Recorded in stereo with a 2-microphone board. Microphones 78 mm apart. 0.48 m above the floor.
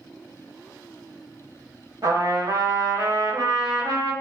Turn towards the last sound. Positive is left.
turn(degrees=-55)  # may be behind; listen again after turning